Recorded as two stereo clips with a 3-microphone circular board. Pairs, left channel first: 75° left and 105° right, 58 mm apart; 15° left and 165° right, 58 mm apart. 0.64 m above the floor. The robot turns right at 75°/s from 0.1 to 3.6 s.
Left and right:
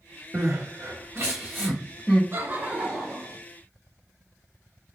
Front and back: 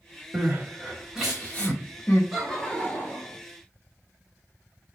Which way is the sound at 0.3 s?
140° right.